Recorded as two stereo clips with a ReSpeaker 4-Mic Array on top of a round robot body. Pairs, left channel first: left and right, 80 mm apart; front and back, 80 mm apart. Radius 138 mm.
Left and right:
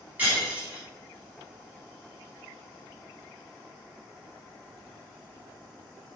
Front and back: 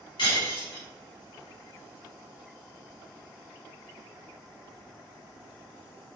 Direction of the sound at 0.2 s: 20° right.